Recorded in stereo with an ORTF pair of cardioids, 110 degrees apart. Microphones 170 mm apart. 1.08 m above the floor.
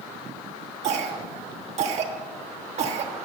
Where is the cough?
45° right, 1.4 m.